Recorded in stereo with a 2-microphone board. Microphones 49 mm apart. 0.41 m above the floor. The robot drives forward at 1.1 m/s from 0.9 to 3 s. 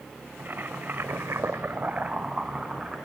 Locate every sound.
0.4 s boiling: 45° right (ahead or behind), 0.7 m; by 3.0 s 15° right (ahead or behind), 1.9 m